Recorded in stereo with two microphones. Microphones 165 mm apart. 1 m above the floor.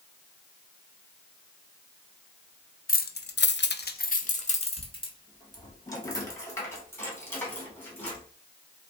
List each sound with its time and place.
2.9 s keys jangling: 55° left (ahead or behind), 0.6 m; by 8.2 s 10° left (ahead or behind), 2.5 m